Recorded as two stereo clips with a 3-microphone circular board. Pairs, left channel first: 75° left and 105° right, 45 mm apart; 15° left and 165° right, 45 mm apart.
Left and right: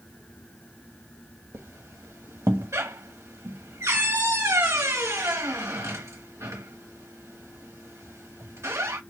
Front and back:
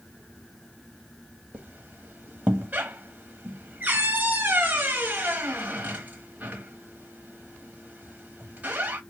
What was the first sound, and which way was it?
A squeak, 110° right.